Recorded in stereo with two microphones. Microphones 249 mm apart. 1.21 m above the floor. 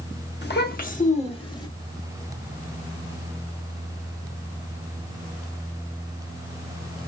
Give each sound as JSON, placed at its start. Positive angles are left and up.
{"t": 0.4, "sound": "a child speaking", "side_deg": 45, "distance_m": 1.4}